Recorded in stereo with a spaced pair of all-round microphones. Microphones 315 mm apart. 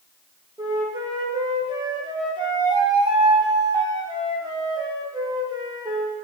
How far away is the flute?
About 0.6 m.